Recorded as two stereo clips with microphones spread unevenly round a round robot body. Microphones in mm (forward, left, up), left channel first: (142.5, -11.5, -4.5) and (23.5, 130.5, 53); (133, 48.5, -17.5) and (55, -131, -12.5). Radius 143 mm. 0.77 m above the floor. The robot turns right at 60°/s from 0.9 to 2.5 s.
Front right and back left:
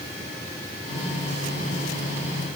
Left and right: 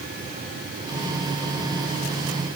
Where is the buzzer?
I don't hear a buzzer.